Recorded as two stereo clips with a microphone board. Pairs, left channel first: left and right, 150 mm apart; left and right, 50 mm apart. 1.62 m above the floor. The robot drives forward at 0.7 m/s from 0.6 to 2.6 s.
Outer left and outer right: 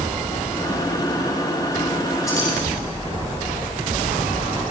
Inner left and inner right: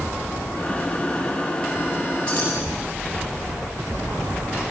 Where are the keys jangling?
20° left (ahead or behind), 9.5 m.